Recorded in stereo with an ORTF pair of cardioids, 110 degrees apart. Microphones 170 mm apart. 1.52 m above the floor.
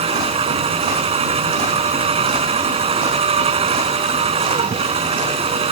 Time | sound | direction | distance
0.0 | a machine running | 35° right | ?